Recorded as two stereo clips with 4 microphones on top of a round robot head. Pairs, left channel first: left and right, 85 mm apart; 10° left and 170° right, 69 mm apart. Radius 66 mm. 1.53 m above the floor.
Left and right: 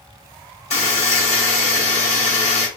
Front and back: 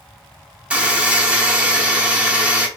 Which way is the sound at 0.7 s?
115° left.